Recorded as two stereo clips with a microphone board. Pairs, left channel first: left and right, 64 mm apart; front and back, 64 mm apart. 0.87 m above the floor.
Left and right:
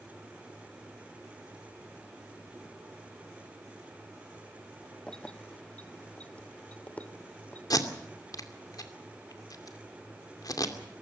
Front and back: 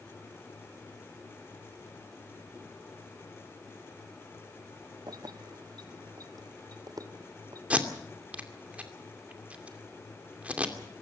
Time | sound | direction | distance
5.1 | keys jangling | 170° left | 0.8 m
7.7 | tape being pulled | 110° left | 2.5 m